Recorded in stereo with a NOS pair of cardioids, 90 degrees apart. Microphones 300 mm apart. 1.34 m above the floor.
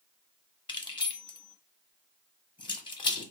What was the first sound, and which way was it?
Keys jangling, 15° left.